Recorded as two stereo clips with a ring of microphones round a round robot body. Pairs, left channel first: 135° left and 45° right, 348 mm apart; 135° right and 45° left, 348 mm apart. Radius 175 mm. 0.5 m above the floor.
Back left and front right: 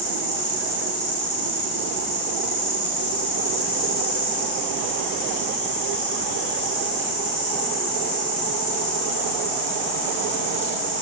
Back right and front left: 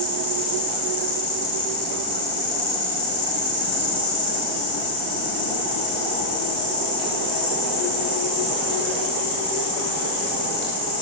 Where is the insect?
170° right, 10 m.